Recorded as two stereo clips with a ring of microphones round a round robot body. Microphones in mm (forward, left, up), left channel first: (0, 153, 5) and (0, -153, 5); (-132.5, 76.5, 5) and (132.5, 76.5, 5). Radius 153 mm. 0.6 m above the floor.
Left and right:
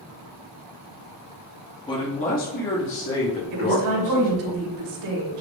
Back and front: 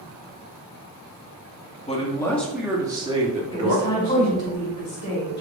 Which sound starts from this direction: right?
A woman speaking, at 3.5 s.